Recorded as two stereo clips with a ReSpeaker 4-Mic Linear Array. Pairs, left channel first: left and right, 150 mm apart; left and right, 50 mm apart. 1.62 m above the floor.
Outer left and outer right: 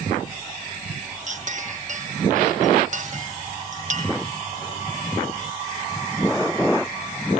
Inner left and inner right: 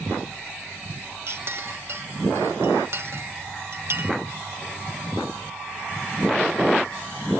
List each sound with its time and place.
1.3 s a clink: 55° right (ahead or behind), 1.0 m